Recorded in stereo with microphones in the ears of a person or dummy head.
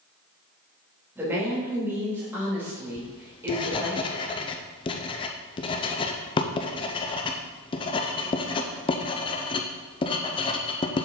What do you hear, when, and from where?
1.1 s a woman speaking: 20° right (ahead or behind), 2.5 m
3.0 s writing: 30° left (ahead or behind), 0.5 m